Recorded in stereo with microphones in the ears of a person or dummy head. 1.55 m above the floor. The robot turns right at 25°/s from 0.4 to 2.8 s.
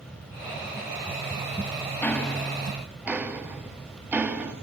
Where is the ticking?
10° left (ahead or behind), 1.6 m; by 4.5 s 5° right (ahead or behind), 1.6 m.